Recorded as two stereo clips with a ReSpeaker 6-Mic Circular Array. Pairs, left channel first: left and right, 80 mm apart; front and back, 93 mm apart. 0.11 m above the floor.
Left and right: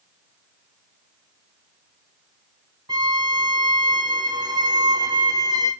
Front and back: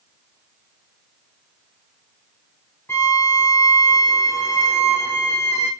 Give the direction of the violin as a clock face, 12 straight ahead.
2 o'clock.